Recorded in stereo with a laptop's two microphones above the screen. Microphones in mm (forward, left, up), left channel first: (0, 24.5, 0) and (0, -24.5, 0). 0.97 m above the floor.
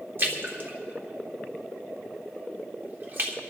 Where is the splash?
45° right (ahead or behind), 1.1 m.